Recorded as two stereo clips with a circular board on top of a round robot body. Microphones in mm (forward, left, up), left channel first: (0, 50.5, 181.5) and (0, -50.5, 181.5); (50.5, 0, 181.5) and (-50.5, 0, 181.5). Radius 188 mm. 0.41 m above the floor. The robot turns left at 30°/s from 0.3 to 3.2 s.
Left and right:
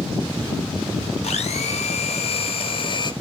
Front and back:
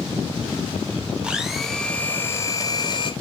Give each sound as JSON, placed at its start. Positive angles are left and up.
{"t": 1.2, "sound": "a blender", "azimuth_deg": 100, "distance_m": 1.1}